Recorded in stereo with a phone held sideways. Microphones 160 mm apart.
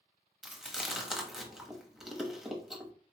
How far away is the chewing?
About 1.0 m.